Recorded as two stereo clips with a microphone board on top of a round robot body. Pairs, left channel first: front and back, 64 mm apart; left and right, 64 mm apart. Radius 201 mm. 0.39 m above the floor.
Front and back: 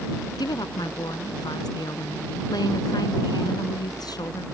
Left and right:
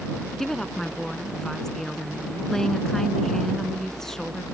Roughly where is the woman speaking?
Ahead.